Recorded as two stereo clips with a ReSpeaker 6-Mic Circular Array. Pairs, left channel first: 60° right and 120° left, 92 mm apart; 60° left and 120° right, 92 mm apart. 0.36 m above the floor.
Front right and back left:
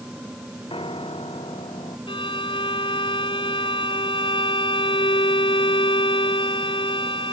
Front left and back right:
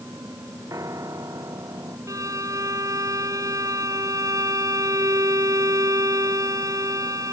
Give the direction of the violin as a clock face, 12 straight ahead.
2 o'clock.